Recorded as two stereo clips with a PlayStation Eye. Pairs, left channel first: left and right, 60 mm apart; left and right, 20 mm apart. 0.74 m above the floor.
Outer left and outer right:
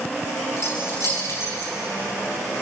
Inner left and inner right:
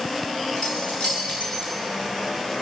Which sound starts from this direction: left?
Keys jangling, at 0.6 s.